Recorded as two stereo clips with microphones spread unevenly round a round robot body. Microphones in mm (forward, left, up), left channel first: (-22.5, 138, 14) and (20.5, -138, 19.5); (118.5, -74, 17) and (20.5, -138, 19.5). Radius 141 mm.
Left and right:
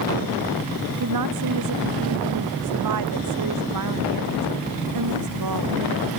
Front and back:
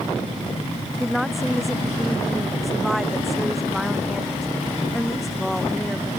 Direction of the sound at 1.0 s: 55° right.